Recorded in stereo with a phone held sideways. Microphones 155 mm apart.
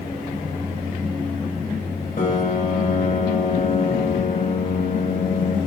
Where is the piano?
50° left (ahead or behind), 1.3 m.